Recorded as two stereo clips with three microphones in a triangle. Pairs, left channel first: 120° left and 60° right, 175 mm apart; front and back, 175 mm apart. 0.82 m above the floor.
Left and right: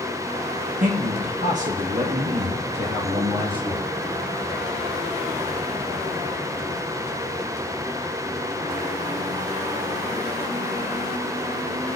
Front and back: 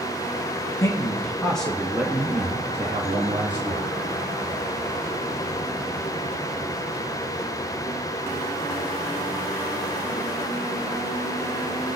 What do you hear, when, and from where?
0.8 s a man speaking: 65° right, 1.4 m; by 3.9 s 120° right, 2 m